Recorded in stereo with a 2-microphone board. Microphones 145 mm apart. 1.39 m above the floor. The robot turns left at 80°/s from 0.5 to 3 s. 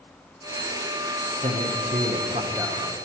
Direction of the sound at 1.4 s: 60° right.